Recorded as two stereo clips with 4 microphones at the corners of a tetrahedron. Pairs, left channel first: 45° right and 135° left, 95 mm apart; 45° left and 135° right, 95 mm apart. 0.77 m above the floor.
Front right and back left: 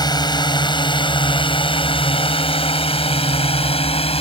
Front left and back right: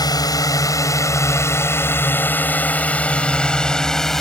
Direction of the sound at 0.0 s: Straight ahead.